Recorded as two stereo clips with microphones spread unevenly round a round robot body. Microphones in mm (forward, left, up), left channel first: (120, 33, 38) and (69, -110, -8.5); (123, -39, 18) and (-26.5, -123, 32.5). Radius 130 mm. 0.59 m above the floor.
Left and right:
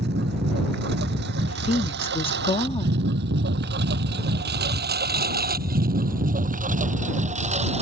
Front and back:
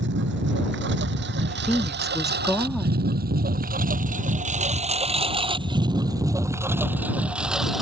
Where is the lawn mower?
150° right; by 7.8 s 60° right.